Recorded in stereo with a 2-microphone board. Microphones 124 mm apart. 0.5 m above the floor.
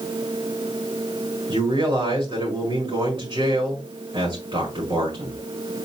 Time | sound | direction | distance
1.5 | a man speaking | 30° right (ahead or behind) | 5 m